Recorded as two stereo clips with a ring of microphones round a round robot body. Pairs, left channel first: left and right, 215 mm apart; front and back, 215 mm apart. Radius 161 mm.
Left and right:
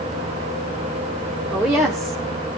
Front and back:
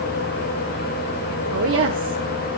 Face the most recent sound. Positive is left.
turn(degrees=-175)